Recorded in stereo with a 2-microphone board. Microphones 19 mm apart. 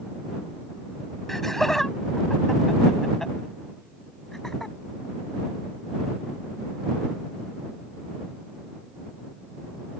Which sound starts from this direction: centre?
Laughter, at 1.3 s.